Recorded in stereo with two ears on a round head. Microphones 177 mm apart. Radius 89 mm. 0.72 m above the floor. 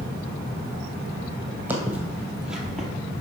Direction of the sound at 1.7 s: 10° right (ahead or behind).